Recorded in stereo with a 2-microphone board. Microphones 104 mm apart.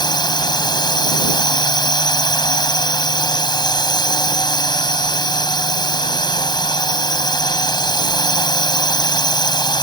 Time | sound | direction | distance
0.0 | a drone | 45° left (ahead or behind) | ?